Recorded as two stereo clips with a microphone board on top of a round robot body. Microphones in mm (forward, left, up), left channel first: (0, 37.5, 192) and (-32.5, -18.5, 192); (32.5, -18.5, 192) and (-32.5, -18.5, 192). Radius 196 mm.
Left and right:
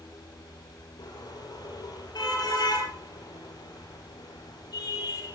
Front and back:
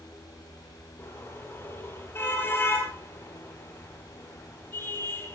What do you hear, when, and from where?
1.0 s a car horn: 55° left, 9 m